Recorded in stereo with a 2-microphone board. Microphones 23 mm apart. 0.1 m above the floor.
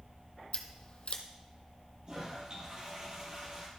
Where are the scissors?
50° left (ahead or behind), 0.9 m.